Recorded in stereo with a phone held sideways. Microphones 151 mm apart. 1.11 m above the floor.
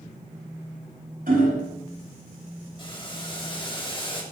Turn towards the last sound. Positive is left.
turn(degrees=35)  # may be behind; listen again after turning